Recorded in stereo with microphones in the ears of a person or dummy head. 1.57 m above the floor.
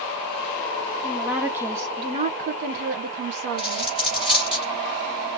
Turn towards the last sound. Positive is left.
turn(degrees=-10)  # may be behind; listen again after turning